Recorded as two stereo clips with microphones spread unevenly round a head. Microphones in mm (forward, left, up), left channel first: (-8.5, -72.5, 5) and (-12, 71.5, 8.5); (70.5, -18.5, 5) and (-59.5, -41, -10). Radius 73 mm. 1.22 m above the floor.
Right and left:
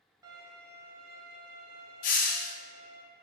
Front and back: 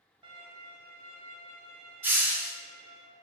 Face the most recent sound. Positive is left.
turn(degrees=-100)